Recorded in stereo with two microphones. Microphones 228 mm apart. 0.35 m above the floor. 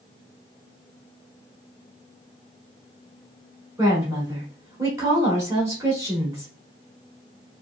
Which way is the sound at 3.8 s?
15° right (ahead or behind).